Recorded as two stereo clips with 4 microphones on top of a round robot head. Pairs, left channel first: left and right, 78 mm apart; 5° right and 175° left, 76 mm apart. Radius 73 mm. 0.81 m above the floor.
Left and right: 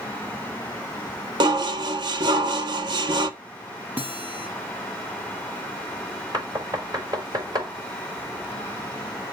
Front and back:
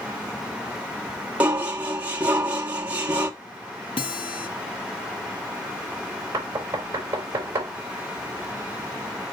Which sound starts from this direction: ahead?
A guitar, at 4.0 s.